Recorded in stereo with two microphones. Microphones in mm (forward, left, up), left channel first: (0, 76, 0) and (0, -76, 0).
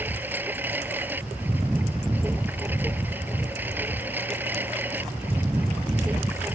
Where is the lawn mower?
10° right (ahead or behind).